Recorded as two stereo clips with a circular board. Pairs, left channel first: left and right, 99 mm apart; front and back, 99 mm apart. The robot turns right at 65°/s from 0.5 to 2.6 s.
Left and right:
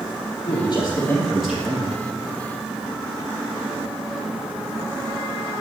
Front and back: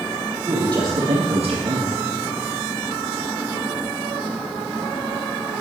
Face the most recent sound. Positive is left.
turn(degrees=-105)